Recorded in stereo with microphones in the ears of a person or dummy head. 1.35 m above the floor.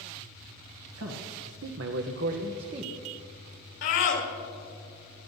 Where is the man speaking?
70° right (ahead or behind), 1.0 m; by 2.9 s 25° right (ahead or behind), 0.9 m.